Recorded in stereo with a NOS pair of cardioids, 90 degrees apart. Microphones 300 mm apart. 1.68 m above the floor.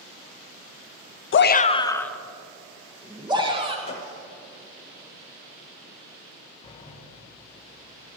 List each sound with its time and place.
1.3 s a shout: 45° left, 0.7 m; by 3.8 s 15° right, 2.5 m
3.9 s a gunshot: 20° left, 3 m
6.6 s a sliding door: 20° left, 1.6 m